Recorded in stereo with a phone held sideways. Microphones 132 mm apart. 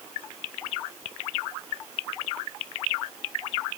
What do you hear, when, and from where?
Only background noise.